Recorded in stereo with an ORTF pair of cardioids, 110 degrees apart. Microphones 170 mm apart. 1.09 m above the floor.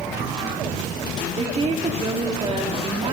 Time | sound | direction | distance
1.4 | a woman speaking | 35° right | 1.9 m